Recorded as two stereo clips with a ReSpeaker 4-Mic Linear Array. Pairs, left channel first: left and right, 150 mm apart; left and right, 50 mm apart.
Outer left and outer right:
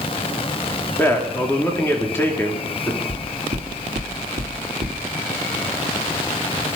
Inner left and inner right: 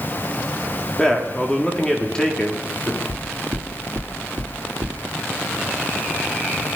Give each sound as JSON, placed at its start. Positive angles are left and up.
{"t": 1.0, "sound": "a man speaking", "side_deg": 15, "distance_m": 3.0}
{"t": 3.1, "sound": "knocking", "side_deg": -60, "distance_m": 3.0}